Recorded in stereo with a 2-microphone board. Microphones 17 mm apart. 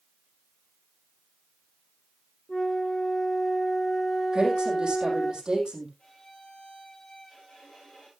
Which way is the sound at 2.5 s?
30° left (ahead or behind).